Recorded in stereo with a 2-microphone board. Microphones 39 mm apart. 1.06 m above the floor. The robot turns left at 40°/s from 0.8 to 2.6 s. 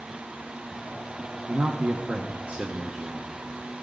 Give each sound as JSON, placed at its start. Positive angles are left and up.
{"t": 1.5, "sound": "a man speaking", "azimuth_deg": -95, "distance_m": 1.0}